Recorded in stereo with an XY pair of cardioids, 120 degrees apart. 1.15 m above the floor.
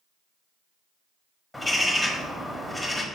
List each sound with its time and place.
1.5 s a bird: 5° left, 1.3 m